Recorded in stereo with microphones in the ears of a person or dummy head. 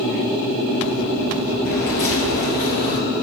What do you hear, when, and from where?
1.6 s footsteps: 35° left (ahead or behind), 1.7 m; by 3.0 s 50° left (ahead or behind), 2.5 m